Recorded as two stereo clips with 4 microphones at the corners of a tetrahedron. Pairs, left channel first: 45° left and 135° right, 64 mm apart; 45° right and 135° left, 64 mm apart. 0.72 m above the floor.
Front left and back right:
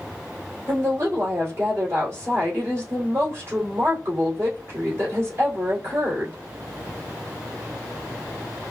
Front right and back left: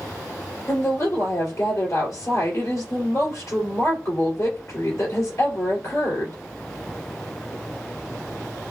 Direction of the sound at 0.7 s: 85° right.